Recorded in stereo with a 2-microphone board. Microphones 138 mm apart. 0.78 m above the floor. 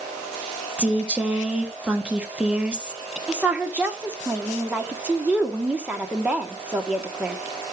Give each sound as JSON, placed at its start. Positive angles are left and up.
{"t": 0.8, "sound": "a woman speaking", "side_deg": -10, "distance_m": 1.3}
{"t": 3.3, "sound": "a woman speaking", "side_deg": -10, "distance_m": 1.5}